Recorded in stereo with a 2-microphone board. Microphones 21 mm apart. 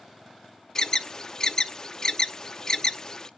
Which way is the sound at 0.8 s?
20° left (ahead or behind).